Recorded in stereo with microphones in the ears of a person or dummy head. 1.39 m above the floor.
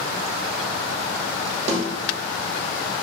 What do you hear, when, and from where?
1.7 s a snare drum: 45° right (ahead or behind), 1.1 m